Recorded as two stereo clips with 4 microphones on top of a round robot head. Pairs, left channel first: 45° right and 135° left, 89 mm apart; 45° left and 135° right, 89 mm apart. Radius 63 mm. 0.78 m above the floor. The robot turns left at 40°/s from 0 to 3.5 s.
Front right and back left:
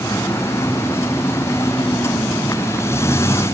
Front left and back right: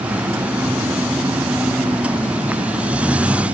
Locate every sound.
Only background noise.